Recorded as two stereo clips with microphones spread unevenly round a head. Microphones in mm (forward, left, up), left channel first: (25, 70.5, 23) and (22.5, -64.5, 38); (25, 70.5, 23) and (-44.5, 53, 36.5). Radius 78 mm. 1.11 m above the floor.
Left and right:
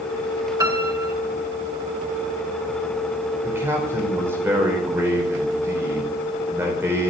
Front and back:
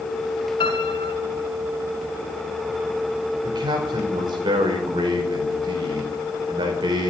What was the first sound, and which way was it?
A piano, 30° right.